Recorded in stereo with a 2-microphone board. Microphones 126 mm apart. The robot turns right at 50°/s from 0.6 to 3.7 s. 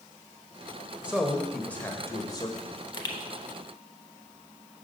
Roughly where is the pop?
Left.